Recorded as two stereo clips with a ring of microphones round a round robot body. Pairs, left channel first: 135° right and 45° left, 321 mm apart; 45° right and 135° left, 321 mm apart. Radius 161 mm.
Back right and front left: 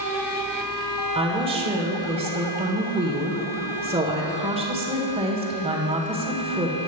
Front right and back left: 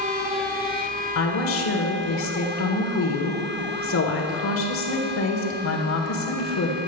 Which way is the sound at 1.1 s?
20° right.